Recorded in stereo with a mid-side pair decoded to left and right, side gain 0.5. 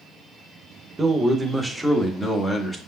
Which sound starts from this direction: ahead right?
A man speaking, at 1.0 s.